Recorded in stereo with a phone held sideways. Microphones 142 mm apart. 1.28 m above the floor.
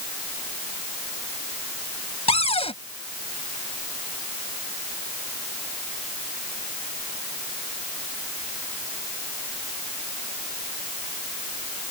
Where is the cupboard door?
45° left (ahead or behind).